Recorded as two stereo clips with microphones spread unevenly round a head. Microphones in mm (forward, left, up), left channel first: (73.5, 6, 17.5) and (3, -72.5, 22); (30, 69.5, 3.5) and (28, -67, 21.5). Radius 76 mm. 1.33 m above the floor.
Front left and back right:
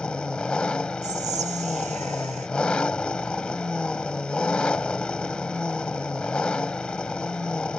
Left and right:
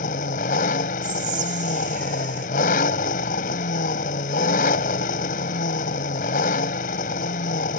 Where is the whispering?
135° right.